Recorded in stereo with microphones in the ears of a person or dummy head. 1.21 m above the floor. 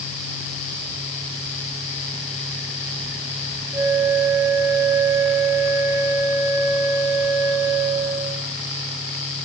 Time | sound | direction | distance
3.7 | a flute | 15° right (ahead or behind) | 2 m